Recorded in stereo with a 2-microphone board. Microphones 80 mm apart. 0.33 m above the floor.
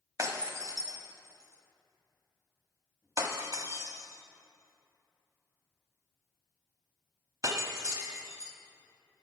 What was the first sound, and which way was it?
Breaking glass, 40° right (ahead or behind).